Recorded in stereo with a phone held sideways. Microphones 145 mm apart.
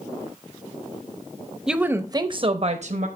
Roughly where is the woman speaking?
Centre.